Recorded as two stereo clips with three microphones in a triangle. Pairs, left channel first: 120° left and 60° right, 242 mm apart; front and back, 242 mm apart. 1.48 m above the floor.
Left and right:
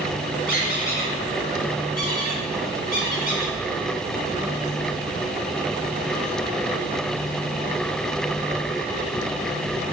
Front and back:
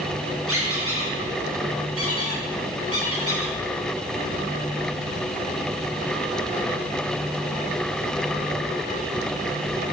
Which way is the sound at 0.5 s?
170° left.